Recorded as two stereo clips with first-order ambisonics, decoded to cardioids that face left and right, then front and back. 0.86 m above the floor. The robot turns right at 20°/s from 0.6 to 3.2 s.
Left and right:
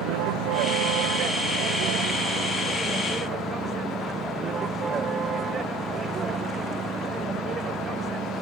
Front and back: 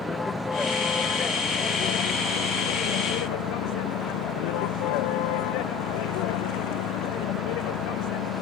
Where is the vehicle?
75° right; by 8.4 s 20° right.